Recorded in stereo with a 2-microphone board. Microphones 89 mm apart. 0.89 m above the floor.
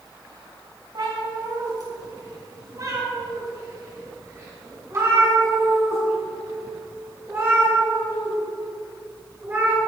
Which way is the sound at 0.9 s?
55° right (ahead or behind).